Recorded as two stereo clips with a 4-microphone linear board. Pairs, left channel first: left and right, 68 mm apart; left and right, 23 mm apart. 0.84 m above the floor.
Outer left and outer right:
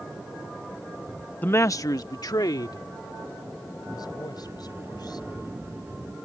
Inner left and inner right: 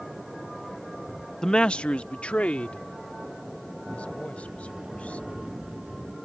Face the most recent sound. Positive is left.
turn(degrees=-35)  # may be behind; listen again after turning